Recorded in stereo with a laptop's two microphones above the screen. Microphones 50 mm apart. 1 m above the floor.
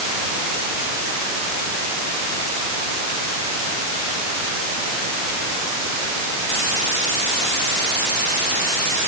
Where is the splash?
I don't hear a splash.